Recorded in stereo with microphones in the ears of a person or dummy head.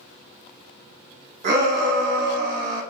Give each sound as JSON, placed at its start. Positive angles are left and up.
{"t": 1.4, "sound": "a shout", "side_deg": -50, "distance_m": 0.8}